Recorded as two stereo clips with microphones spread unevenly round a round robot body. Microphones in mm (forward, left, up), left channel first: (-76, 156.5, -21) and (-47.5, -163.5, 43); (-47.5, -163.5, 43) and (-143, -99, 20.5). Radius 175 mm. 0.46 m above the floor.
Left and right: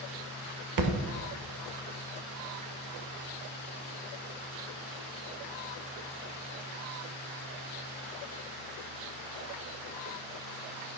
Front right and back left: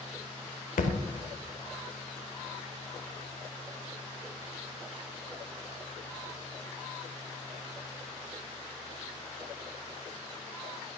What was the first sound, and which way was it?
A thud, 40° right.